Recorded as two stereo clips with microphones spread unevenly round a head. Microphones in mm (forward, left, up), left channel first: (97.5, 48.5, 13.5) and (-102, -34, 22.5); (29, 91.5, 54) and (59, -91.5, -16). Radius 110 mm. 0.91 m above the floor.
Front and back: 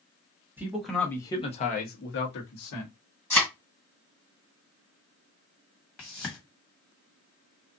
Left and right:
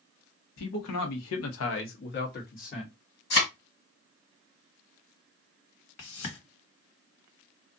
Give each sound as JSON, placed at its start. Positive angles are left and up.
{"t": 0.6, "sound": "a man speaking", "azimuth_deg": 120, "distance_m": 1.0}
{"t": 3.3, "sound": "a thud", "azimuth_deg": 110, "distance_m": 1.8}
{"t": 6.0, "sound": "a whoosh", "azimuth_deg": 110, "distance_m": 1.6}